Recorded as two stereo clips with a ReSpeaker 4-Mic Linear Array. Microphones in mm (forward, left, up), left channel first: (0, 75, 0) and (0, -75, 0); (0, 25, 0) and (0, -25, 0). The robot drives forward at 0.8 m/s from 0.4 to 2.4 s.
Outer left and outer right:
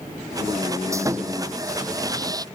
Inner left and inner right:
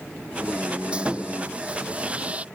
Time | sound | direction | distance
0.9 | sawing | 20° right (ahead or behind) | ?